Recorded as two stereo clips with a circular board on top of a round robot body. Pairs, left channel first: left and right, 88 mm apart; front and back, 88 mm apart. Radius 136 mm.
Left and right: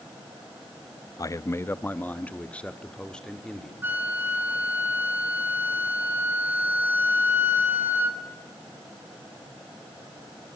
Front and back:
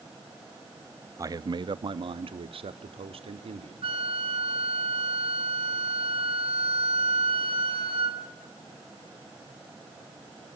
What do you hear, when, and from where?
1.2 s a man speaking: 130° left, 0.7 m; by 3.7 s 175° left, 2 m
3.8 s a flute: 160° right, 1.7 m